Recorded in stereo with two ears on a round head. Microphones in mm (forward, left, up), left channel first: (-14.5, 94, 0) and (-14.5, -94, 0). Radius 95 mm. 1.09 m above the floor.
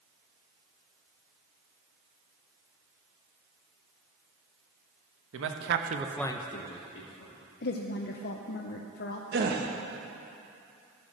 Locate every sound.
5.3 s a man speaking: 70° right (ahead or behind), 1.3 m; by 7.3 s 65° left (ahead or behind), 1.8 m
7.6 s a woman speaking: 50° left (ahead or behind), 0.6 m
9.3 s a gasp: 50° right (ahead or behind), 0.9 m